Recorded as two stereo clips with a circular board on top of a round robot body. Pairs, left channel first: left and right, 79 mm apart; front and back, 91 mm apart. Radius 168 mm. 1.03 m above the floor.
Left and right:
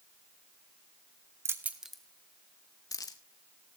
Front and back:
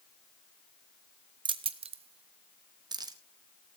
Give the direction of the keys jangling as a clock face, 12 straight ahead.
5 o'clock.